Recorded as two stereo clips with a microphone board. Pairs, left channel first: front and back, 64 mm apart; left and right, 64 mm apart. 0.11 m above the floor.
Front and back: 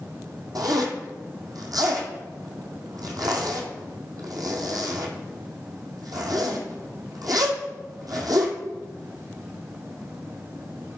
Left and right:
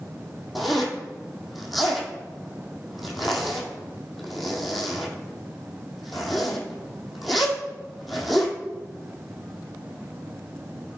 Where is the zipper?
Straight behind, 1.6 m.